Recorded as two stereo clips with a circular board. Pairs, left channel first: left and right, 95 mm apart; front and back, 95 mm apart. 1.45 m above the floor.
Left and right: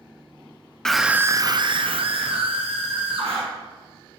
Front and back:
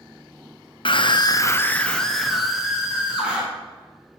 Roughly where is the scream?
Ahead.